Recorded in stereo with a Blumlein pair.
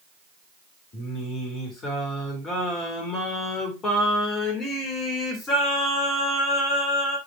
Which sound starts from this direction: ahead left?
Singing, at 0.9 s.